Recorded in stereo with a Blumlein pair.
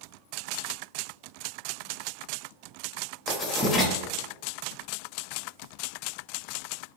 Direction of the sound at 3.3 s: 20° left.